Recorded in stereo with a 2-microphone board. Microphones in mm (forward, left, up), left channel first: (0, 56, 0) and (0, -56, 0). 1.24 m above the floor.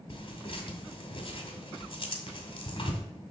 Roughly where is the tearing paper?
Left.